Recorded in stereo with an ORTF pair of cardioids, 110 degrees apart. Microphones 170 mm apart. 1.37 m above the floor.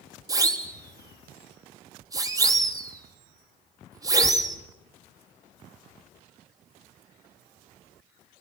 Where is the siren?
20° right, 3 m.